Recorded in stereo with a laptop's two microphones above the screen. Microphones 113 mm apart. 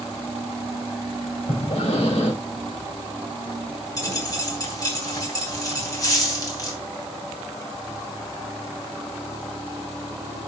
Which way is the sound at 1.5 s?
65° left (ahead or behind).